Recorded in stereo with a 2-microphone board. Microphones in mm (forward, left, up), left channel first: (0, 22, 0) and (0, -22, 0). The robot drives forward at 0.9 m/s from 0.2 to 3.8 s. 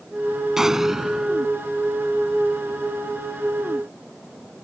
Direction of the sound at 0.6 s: 15° right (ahead or behind).